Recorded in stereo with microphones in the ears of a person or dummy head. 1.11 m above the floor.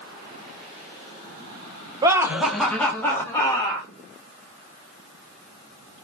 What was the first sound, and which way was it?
Laughter, 20° right (ahead or behind).